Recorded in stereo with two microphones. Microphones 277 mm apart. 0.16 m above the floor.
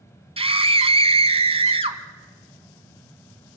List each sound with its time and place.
0.4 s a scream: 20° right (ahead or behind), 1.3 m